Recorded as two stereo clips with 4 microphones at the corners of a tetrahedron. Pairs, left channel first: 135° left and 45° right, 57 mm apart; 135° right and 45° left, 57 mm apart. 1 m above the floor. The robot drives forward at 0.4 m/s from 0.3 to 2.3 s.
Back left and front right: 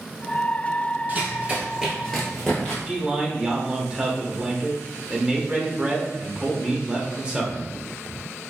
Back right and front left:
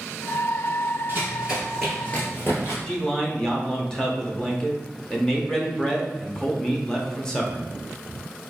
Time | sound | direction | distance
1.1 | running footsteps | straight ahead | 1.4 m
2.9 | a man speaking | 80° right | 0.6 m